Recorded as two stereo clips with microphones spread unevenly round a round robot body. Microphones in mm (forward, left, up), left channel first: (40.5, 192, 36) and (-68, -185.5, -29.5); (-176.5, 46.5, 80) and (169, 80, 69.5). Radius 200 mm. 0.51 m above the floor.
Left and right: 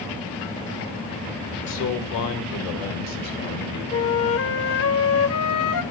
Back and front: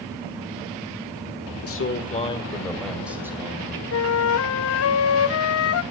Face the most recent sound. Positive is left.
turn(degrees=135)